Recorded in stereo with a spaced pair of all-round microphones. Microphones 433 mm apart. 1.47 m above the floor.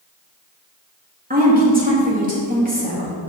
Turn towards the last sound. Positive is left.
turn(degrees=-20)  # may be behind; listen again after turning